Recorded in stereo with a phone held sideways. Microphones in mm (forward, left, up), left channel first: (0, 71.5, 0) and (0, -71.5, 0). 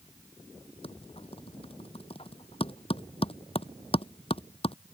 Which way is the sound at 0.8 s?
40° left (ahead or behind).